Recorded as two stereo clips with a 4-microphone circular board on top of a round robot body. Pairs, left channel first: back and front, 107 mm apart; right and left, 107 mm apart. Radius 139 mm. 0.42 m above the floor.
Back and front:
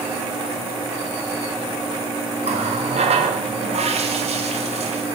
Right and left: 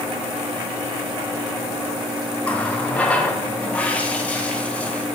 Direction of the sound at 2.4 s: 15° right.